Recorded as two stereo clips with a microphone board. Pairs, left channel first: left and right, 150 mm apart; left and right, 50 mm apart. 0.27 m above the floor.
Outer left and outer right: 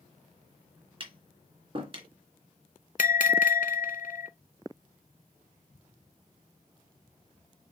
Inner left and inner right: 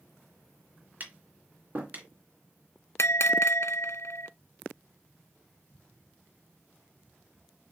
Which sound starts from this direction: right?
Tapping, at 1.0 s.